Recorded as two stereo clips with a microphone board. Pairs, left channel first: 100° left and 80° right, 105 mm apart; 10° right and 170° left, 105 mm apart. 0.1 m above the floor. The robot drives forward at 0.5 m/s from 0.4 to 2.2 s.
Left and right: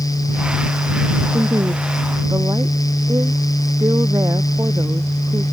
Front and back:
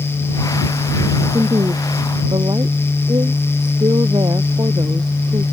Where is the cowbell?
No cowbell in this recording.